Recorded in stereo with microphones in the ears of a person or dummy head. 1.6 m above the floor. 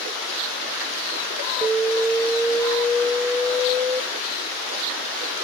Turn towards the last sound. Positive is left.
turn(degrees=-15)  # may be behind; listen again after turning